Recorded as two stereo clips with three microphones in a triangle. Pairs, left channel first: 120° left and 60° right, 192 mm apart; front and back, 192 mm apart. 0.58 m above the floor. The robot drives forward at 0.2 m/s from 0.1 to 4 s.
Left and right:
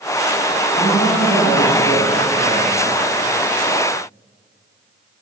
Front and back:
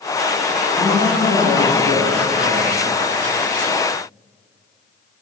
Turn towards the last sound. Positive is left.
turn(degrees=150)